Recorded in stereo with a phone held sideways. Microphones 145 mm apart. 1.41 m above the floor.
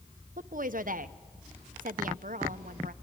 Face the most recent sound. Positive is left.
turn(degrees=-70)  # may be behind; listen again after turning